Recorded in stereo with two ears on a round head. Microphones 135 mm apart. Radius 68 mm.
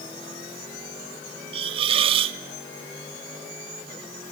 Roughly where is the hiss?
Right.